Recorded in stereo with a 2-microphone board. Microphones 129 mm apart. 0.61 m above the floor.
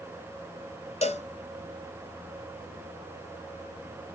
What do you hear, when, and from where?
1.0 s a cowbell: 55° left (ahead or behind), 1.1 m